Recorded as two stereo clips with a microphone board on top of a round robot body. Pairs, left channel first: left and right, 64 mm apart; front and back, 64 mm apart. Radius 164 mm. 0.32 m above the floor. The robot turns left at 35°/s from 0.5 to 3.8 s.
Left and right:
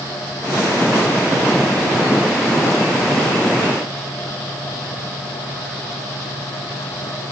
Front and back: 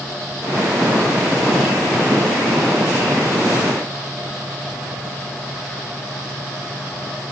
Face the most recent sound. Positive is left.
No sound to turn to.